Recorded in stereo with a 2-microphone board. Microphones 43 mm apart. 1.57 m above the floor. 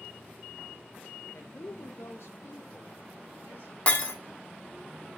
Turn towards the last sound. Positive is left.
turn(degrees=30)  # may be behind; listen again after turning